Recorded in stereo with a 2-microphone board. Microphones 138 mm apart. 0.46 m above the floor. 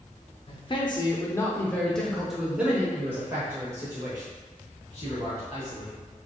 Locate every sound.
0.5 s a man speaking: 40° left (ahead or behind), 0.9 m; by 6.0 s 30° right (ahead or behind), 2.5 m